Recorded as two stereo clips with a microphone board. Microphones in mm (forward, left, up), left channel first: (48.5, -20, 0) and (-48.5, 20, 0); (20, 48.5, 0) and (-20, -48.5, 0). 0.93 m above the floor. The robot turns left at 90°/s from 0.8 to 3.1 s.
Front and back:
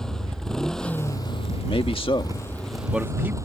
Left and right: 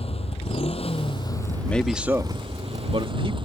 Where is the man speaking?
5° right; by 3.4 s 135° right.